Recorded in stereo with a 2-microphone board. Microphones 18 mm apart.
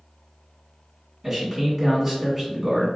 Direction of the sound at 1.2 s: 20° right (ahead or behind).